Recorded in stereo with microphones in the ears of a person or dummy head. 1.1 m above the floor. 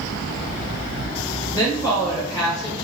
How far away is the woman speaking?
About 1.0 m.